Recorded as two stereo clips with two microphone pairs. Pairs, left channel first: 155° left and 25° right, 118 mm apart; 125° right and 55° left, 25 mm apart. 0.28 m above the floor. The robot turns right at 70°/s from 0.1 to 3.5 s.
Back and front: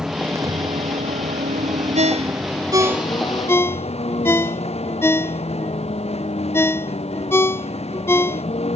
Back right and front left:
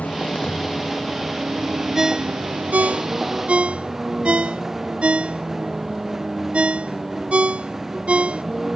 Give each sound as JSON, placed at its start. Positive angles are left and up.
{"t": 0.0, "sound": "a vehicle", "azimuth_deg": -110}
{"t": 1.9, "sound": "a ringtone", "azimuth_deg": -20}